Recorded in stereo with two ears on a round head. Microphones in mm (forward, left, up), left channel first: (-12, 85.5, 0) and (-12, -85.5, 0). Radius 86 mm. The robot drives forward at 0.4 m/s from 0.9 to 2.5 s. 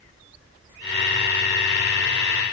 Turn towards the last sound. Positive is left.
No sound to turn to.